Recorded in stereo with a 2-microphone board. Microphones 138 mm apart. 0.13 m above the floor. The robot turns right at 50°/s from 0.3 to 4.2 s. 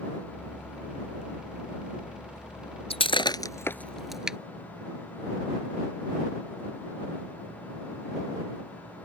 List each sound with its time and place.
2.9 s breaking glass: 45° left (ahead or behind); by 4.4 s 5° right (ahead or behind)